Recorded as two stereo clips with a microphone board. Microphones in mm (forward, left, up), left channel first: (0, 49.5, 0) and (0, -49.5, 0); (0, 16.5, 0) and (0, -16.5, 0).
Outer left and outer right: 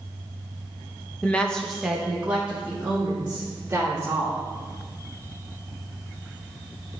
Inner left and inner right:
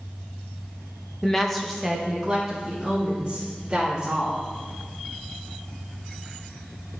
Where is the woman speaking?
15° left (ahead or behind), 0.9 m; by 4.4 s 20° right (ahead or behind), 3.5 m.